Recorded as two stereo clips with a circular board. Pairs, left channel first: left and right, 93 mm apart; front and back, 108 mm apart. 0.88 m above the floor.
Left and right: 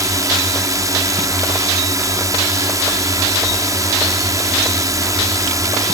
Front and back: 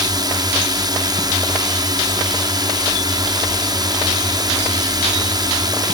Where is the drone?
135° right.